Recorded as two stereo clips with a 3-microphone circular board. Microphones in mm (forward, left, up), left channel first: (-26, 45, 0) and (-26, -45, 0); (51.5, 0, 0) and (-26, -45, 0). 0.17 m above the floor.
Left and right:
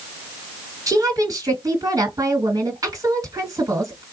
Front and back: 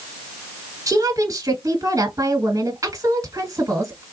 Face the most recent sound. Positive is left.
turn(degrees=-120)